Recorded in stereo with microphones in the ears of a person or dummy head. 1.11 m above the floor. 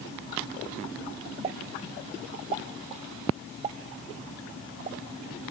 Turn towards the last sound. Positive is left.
turn(degrees=-25)  # may be behind; listen again after turning